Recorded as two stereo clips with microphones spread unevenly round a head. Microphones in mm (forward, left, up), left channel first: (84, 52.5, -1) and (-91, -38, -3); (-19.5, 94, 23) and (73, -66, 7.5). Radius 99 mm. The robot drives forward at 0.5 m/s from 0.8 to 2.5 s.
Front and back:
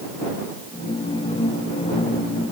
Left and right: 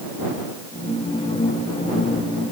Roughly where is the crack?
I don't hear a crack.